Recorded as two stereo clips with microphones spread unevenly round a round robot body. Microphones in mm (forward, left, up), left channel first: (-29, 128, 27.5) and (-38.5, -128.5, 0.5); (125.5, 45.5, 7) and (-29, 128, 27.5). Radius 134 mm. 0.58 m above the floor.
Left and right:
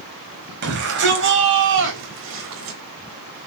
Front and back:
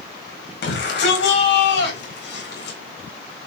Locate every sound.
0.6 s a shout: 45° right, 4.5 m; by 2.8 s 55° right, 3.5 m